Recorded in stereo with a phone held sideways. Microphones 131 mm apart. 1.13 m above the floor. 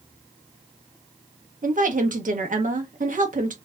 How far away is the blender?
I don't hear a blender.